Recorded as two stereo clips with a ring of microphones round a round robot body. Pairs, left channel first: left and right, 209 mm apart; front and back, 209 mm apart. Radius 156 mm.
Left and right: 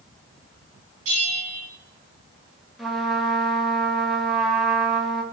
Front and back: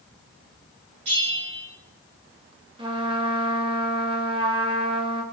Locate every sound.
1.1 s a bell: 125° right, 5 m
2.8 s a trumpet: straight behind, 1.2 m